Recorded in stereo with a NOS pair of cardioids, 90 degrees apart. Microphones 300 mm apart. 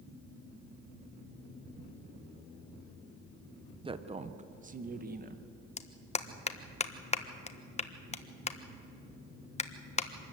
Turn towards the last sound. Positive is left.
turn(degrees=25)